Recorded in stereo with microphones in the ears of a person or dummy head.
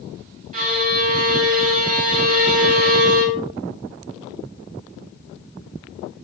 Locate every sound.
0.5 s a violin: 50° right (ahead or behind), 5 m